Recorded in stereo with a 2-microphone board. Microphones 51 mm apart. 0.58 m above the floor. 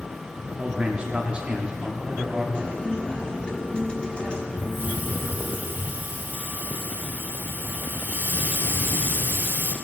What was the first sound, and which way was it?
A man speaking, 20° right (ahead or behind).